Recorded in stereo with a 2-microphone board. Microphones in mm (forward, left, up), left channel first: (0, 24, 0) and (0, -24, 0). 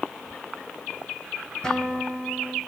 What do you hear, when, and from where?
1.6 s a guitar: 15° left (ahead or behind), 3.5 m